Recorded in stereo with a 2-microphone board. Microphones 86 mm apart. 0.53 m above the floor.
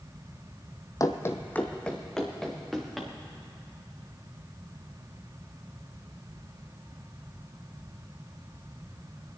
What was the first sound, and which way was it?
Running footsteps, 40° left (ahead or behind).